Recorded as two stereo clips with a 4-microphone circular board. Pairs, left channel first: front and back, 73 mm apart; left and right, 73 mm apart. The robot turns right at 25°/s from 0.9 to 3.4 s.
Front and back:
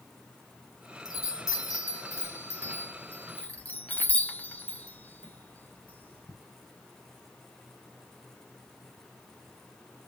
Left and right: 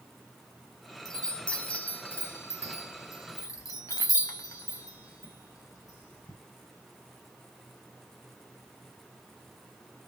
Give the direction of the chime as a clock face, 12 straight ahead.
12 o'clock.